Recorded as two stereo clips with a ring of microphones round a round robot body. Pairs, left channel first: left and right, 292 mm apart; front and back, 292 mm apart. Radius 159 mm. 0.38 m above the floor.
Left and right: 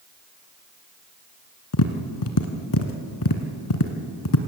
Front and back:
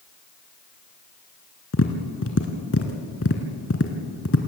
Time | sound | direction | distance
1.7 | tapping | 55° left | 1.4 m